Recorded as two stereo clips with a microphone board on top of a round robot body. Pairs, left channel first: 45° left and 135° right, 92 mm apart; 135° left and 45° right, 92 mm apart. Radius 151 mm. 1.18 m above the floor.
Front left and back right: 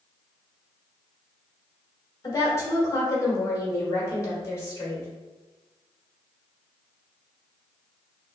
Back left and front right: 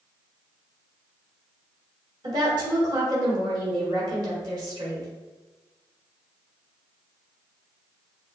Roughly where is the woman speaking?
Ahead.